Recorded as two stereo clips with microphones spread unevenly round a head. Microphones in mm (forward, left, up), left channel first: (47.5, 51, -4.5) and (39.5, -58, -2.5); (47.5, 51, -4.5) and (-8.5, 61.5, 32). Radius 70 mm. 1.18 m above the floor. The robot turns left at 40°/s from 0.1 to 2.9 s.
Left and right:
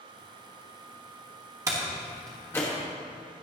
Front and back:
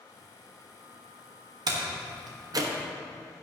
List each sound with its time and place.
1.7 s a door slam: 165° right, 1.4 m; by 2.7 s 155° left, 1.4 m